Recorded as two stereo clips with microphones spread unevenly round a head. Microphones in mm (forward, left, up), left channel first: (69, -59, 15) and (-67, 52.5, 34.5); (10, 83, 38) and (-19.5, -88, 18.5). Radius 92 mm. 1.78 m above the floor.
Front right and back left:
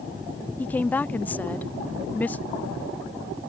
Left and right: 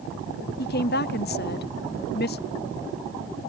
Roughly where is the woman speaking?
Ahead left.